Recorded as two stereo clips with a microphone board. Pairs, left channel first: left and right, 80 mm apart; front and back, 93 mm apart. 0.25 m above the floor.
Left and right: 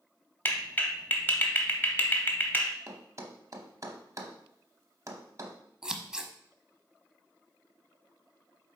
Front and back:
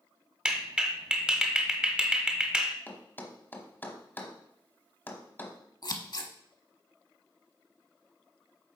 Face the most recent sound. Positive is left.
turn(degrees=-10)